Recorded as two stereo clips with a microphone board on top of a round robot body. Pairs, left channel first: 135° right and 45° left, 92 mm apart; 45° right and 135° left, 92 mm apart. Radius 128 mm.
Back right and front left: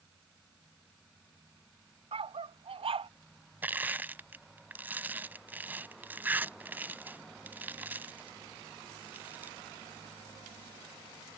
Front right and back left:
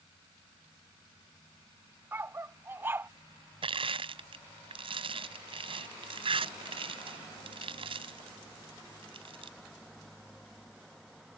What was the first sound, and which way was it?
A dog barking, 70° left.